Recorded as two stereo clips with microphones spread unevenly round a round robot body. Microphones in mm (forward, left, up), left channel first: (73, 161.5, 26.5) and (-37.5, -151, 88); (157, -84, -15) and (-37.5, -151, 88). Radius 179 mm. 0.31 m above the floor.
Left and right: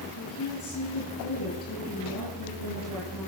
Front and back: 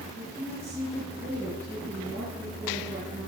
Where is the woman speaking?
115° left, 6 m.